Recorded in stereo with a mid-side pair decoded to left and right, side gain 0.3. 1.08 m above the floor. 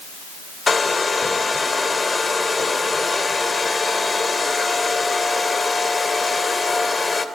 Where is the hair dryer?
40° left, 3 m.